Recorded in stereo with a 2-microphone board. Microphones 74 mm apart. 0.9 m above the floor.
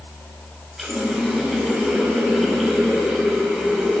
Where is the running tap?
Centre (ahead or behind), 3.5 m.